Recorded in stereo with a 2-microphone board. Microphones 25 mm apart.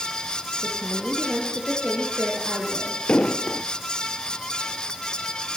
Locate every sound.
0.6 s a woman speaking: 45° right (ahead or behind), 7.5 m
3.1 s an explosion: 55° left (ahead or behind), 1.0 m